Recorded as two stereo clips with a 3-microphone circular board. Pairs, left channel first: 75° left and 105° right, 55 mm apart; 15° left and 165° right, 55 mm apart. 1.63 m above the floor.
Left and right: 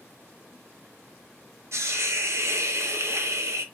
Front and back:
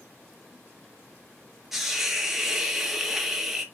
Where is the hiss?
80° right, 0.9 m.